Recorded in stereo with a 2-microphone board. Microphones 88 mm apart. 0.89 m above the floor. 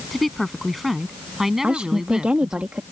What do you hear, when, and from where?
0.1 s a woman speaking: centre (ahead or behind); by 2.6 s 10° right (ahead or behind)
1.6 s a woman speaking: 15° right (ahead or behind)